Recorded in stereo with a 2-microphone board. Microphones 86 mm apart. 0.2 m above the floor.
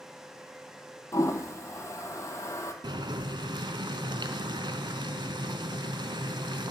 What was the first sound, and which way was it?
A toilet flushing, 35° left (ahead or behind).